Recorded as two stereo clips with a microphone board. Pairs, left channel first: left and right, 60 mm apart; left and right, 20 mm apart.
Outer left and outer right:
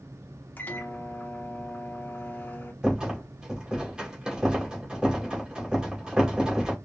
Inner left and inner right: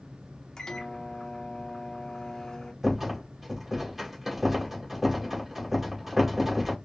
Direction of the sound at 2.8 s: 15° right (ahead or behind).